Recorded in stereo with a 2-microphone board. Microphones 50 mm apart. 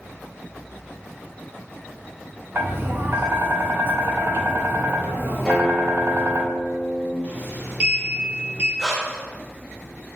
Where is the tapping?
45° right (ahead or behind), 0.7 m.